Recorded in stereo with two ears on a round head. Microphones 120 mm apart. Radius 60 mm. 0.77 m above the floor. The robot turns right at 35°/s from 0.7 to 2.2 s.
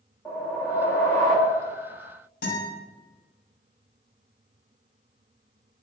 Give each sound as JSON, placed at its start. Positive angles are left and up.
{"t": 0.2, "sound": "a whoosh", "azimuth_deg": 15, "distance_m": 0.6}
{"t": 2.4, "sound": "a guitar", "side_deg": 70, "distance_m": 1.8}